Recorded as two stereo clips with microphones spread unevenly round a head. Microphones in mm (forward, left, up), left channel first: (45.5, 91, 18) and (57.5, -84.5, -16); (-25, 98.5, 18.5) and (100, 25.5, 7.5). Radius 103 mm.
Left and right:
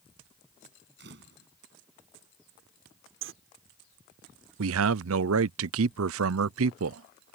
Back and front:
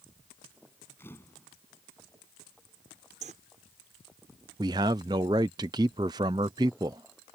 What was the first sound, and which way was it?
A camera shutter, 130° right.